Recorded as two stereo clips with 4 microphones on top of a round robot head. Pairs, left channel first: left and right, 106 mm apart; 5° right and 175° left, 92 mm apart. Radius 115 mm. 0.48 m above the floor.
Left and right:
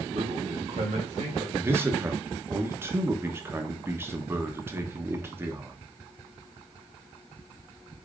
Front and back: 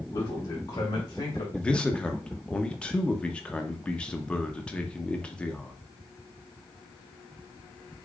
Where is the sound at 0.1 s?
60° right, 2.5 m; by 1.4 s 50° right, 2 m.